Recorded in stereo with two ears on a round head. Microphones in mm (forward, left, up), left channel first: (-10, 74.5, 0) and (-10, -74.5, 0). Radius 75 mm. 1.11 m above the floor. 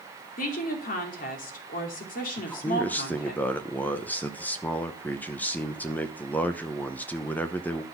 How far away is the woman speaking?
About 2.5 m.